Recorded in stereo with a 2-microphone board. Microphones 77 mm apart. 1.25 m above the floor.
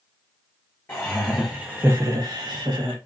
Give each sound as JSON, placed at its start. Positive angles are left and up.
{"t": 0.9, "sound": "laughter", "side_deg": 25, "distance_m": 0.6}